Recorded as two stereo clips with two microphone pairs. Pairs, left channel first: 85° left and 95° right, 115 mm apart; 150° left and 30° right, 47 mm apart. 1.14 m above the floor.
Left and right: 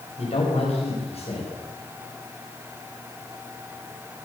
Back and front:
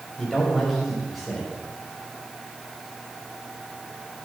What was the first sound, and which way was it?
A man speaking, 55° left.